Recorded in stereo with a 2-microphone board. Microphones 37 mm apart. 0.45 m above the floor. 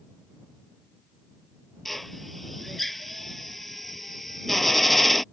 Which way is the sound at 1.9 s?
5° left (ahead or behind).